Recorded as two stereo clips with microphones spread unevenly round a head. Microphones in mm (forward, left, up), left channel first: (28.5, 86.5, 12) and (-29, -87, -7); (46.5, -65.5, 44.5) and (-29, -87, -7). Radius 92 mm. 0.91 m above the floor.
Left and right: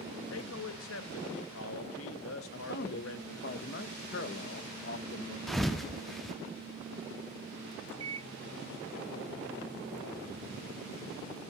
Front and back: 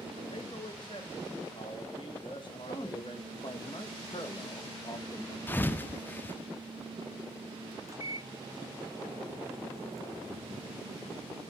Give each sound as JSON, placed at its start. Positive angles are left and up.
{"t": 0.3, "sound": "a man speaking", "azimuth_deg": 80, "distance_m": 1.1}
{"t": 2.5, "sound": "a man speaking", "azimuth_deg": 90, "distance_m": 0.9}
{"t": 5.5, "sound": "a thud", "azimuth_deg": -15, "distance_m": 0.5}
{"t": 7.9, "sound": "a microwave", "azimuth_deg": -120, "distance_m": 0.9}